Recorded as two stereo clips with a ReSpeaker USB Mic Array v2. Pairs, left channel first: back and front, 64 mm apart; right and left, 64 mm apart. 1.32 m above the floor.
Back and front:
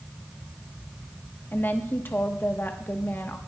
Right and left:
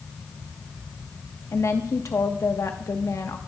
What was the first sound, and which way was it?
A woman speaking, 125° right.